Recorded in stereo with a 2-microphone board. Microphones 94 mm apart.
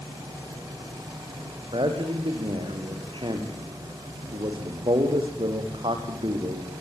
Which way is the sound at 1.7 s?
60° right (ahead or behind).